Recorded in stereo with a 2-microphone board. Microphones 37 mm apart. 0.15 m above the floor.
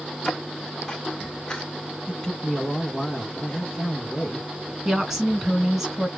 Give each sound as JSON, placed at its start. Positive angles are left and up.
{"t": 0.2, "sound": "footsteps", "side_deg": 10, "distance_m": 1.0}
{"t": 2.1, "sound": "a man speaking", "side_deg": 20, "distance_m": 1.1}
{"t": 4.8, "sound": "a woman speaking", "side_deg": -10, "distance_m": 1.4}